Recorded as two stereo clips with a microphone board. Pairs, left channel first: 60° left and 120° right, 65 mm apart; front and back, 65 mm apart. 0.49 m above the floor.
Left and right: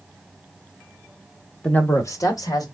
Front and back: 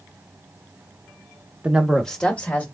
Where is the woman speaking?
125° left, 0.9 m; by 2.6 s 65° left, 1.9 m.